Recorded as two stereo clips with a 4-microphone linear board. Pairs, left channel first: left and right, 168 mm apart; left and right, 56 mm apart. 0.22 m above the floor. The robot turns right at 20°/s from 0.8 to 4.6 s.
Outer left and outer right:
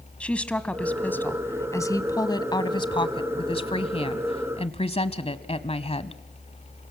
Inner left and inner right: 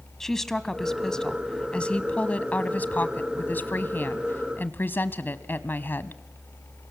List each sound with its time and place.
0.2 s a woman speaking: 15° left, 1.2 m; by 6.2 s 90° left, 1.2 m